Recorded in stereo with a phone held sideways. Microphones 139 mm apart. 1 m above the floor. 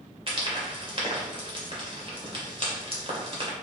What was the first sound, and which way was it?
Frying, 40° right (ahead or behind).